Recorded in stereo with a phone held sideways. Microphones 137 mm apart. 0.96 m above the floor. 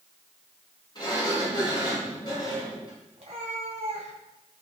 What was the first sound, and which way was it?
A sliding door, 35° left (ahead or behind).